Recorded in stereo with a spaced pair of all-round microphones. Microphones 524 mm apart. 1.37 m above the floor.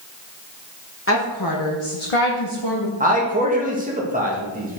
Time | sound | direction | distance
1.1 | a woman speaking | 25° left (ahead or behind) | 1.4 m
3.0 | a man speaking | 15° right (ahead or behind) | 2 m